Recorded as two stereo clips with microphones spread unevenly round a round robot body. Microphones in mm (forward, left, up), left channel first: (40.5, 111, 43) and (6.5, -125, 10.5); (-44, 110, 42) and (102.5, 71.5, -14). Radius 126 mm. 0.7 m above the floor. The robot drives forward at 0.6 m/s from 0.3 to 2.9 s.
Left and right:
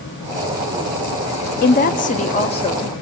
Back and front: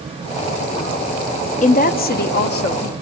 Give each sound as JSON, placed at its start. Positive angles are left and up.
{"t": 1.6, "sound": "a woman speaking", "azimuth_deg": 125, "distance_m": 0.9}